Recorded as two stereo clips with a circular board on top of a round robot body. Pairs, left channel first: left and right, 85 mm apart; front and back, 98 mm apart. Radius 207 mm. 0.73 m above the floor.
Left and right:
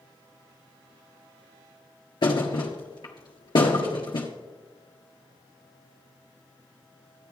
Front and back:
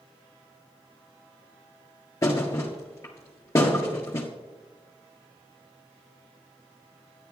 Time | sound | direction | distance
2.2 | a thud | 65° left | 1.5 m